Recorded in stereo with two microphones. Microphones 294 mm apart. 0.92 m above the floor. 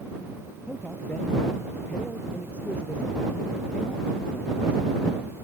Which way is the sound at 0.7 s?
5° left (ahead or behind).